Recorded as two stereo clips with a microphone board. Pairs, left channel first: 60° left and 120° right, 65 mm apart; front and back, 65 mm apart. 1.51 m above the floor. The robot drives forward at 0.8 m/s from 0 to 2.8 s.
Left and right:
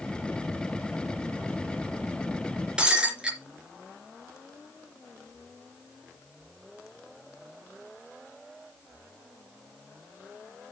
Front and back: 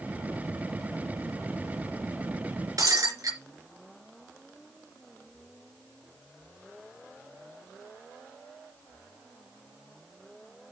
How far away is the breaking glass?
About 3 m.